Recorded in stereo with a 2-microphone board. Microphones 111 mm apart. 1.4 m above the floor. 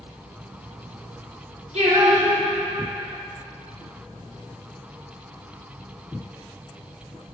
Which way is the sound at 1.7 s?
85° right.